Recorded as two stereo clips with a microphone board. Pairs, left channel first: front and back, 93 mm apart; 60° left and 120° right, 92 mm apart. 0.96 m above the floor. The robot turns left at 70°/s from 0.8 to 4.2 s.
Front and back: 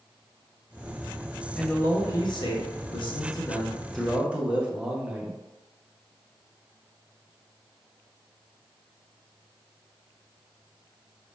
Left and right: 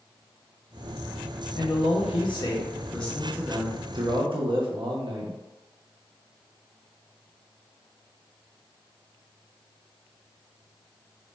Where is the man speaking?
85° left, 0.6 m; by 5.4 s 100° right, 0.6 m.